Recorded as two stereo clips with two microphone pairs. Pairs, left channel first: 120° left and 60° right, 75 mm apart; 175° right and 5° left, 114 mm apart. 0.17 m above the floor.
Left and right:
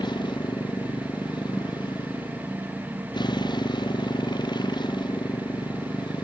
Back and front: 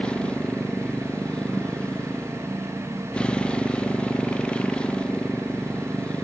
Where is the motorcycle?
105° left.